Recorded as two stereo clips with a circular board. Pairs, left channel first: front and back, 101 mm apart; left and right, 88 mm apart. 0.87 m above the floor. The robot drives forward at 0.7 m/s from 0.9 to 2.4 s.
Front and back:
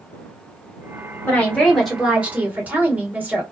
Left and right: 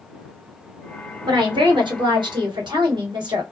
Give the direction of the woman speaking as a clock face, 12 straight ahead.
2 o'clock.